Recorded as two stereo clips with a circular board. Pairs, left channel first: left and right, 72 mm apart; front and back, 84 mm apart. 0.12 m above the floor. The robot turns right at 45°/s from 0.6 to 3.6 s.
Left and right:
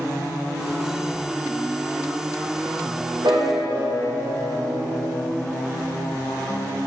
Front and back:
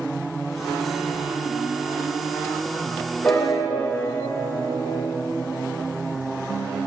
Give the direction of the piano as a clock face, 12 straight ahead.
2 o'clock.